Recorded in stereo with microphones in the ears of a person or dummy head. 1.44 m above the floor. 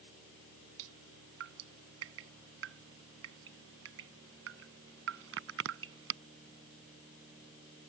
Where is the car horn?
No car horn in this recording.